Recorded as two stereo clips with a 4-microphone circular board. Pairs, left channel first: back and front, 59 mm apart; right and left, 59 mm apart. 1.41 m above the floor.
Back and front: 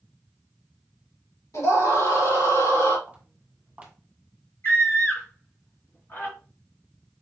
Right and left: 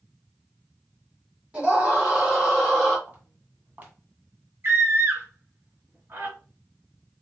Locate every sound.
1.5 s a scream: 160° left, 3 m; by 3.0 s 175° left, 2.5 m
3.1 s footsteps: 60° left, 1.7 m
4.6 s a scream: 135° left, 2 m